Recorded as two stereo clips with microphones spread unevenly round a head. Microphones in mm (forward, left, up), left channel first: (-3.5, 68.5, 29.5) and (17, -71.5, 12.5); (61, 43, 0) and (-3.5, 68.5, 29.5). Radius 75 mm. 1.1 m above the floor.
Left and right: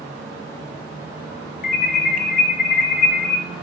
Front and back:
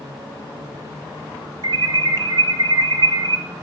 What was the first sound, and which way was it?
An alarm, 125° left.